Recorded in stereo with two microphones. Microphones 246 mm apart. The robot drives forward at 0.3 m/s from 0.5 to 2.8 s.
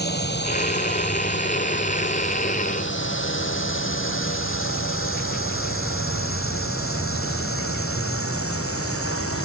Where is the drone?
40° left (ahead or behind); by 9.4 s 65° left (ahead or behind).